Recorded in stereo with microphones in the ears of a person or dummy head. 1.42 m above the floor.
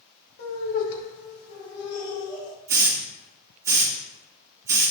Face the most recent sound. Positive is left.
turn(degrees=-15)  # may be behind; listen again after turning